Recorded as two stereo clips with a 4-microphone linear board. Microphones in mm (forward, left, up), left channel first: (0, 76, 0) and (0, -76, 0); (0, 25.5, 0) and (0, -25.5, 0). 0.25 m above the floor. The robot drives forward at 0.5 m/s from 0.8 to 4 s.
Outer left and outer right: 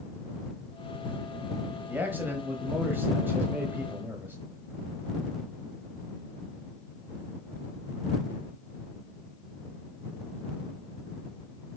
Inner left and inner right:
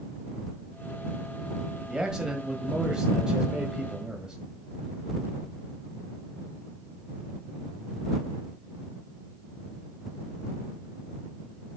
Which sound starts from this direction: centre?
A man speaking, at 1.9 s.